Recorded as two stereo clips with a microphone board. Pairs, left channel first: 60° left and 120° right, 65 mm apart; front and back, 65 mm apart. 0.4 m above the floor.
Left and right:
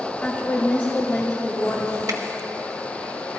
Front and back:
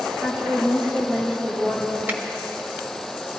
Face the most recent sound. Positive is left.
turn(degrees=-125)